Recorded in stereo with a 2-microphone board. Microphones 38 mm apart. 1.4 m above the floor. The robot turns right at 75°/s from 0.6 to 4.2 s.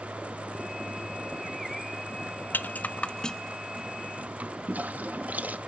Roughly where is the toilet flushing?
Right.